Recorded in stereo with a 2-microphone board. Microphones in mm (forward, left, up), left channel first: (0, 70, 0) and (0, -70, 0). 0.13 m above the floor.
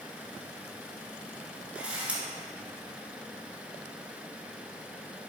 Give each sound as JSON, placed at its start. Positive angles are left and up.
{"t": 1.8, "sound": "a camera shutter", "side_deg": -10, "distance_m": 1.7}